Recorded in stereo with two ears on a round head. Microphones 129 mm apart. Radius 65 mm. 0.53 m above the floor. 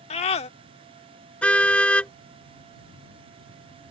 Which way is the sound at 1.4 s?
10° left (ahead or behind).